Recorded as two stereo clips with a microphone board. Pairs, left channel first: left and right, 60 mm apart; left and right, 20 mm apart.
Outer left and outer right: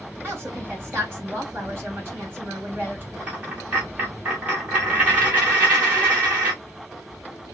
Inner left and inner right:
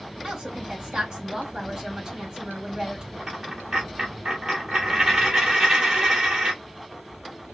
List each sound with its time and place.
0.2 s a woman speaking: 30° right (ahead or behind), 3.5 m
3.2 s a dropped coin: 20° right (ahead or behind), 2 m